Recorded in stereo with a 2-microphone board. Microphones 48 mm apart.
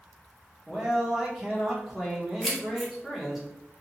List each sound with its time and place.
0.7 s a man speaking: 10° right (ahead or behind), 1.0 m
2.4 s keys jangling: centre (ahead or behind), 0.9 m